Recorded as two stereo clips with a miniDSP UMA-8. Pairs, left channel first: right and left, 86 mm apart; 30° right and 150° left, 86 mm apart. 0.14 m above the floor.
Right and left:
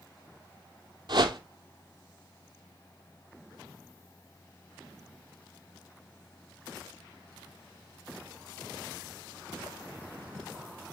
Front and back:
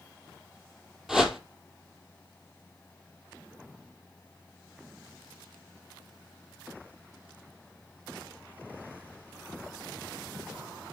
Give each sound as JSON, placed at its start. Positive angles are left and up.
{"t": 1.1, "sound": "a whoosh", "azimuth_deg": 65, "distance_m": 1.0}